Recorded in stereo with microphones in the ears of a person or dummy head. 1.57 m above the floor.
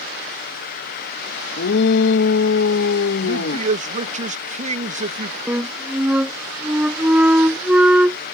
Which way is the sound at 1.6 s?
70° left (ahead or behind).